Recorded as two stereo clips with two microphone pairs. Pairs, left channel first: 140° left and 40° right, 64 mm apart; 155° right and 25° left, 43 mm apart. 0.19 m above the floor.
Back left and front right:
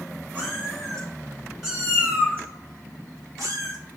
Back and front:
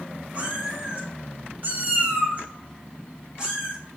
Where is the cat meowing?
75° left, 1.2 m; by 3.8 s 45° right, 1.1 m.